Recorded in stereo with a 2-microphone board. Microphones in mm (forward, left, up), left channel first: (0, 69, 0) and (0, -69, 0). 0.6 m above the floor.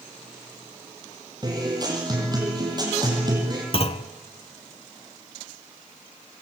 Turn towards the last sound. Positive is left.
turn(degrees=45)  # may be behind; listen again after turning